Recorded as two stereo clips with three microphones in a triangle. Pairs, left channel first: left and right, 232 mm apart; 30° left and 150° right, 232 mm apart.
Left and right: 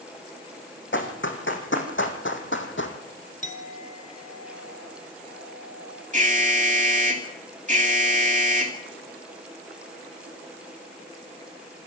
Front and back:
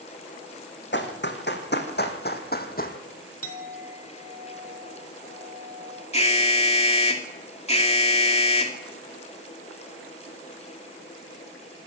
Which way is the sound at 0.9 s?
65° left.